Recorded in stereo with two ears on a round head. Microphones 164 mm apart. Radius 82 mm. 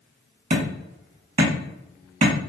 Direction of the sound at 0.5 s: 45° right (ahead or behind).